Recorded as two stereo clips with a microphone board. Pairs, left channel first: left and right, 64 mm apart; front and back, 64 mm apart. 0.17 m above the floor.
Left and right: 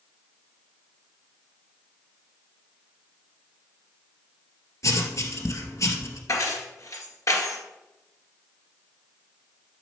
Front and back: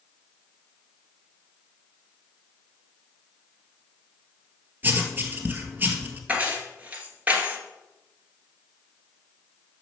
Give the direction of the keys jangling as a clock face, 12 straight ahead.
8 o'clock.